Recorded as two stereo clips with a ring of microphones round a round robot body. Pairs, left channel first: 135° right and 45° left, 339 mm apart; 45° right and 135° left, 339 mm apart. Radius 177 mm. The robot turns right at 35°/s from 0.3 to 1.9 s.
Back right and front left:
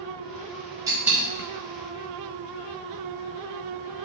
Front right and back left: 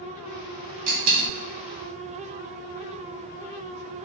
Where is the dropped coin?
125° left, 1.4 m; by 1.3 s 140° left, 1.4 m.